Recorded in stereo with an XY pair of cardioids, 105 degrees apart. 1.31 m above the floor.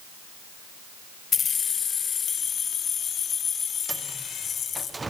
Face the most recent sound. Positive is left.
turn(degrees=-20)